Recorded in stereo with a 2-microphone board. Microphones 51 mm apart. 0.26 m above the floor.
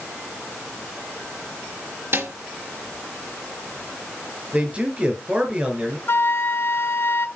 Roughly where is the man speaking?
Right.